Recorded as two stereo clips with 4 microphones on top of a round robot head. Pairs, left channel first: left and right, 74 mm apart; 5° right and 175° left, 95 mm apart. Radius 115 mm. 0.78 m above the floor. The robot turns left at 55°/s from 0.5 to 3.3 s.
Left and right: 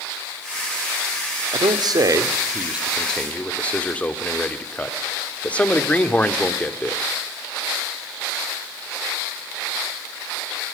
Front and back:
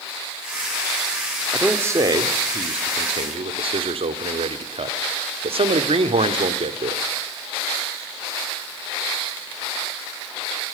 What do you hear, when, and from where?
1.5 s a man speaking: 100° right, 1.9 m; by 7.0 s 160° left, 1.9 m